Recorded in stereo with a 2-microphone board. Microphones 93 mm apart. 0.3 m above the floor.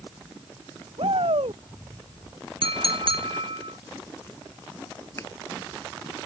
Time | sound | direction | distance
1.0 | a shout | 85° right | ?
2.6 | a clink | 80° right | ?
5.2 | a finger snap | 30° left (ahead or behind) | ?